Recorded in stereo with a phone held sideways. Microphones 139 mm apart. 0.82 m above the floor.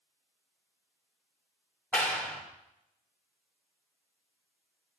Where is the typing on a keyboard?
No typing on a keyboard in this recording.